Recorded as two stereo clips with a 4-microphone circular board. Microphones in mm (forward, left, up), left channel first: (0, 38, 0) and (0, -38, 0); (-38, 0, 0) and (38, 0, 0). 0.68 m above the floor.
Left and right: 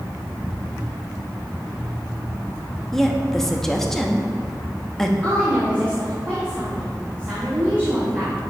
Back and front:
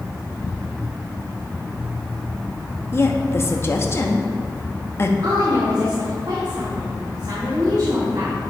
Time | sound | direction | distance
2.9 | a woman speaking | 170° left | 0.7 m
5.2 | a woman speaking | 30° right | 1.7 m